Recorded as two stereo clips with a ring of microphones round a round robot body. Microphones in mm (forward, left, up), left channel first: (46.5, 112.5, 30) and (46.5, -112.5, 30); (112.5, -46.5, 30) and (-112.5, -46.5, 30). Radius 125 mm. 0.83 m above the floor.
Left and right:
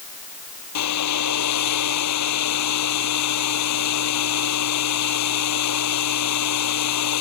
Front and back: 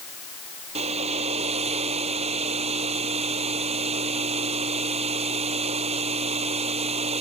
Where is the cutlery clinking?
I don't hear cutlery clinking.